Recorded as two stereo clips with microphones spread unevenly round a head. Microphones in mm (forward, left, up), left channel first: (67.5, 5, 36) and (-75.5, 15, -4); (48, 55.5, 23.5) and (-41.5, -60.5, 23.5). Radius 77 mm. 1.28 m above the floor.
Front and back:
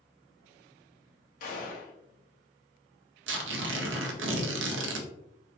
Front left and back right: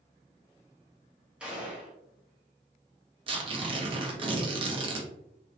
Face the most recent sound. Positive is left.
turn(degrees=175)